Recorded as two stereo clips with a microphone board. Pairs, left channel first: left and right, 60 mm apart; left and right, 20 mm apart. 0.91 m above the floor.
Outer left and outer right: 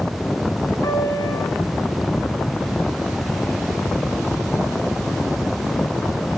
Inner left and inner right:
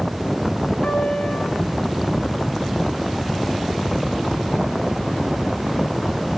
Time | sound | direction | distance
0.8 | a piano | 80° left | 4 m